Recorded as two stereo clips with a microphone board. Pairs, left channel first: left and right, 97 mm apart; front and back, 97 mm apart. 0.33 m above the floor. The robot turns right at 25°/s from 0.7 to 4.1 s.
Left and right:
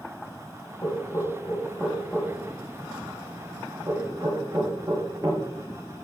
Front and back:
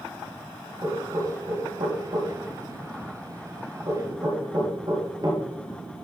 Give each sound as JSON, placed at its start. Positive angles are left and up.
{"t": 0.8, "sound": "knocking", "azimuth_deg": 135, "distance_m": 5.0}